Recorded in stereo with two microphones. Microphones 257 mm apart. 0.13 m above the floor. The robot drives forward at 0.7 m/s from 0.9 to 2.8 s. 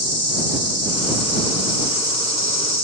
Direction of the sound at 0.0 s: 70° left (ahead or behind).